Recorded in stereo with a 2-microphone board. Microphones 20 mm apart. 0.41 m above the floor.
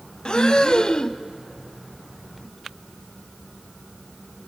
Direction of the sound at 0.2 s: 40° left (ahead or behind).